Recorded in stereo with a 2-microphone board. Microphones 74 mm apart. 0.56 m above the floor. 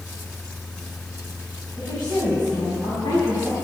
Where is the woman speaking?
70° left (ahead or behind), 4.5 m; by 3.5 s 75° left (ahead or behind), 5.5 m.